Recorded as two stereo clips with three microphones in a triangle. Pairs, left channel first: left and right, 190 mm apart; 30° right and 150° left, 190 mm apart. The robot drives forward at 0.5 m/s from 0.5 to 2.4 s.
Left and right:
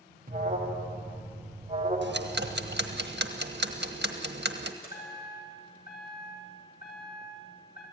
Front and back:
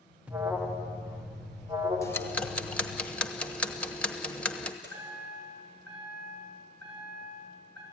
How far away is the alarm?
About 2 m.